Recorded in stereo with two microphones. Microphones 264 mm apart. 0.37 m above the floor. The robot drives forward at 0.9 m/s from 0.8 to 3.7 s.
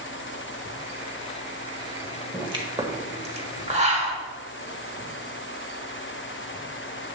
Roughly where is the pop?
Centre.